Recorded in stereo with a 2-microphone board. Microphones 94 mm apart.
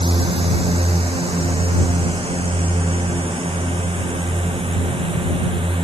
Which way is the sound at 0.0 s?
85° right.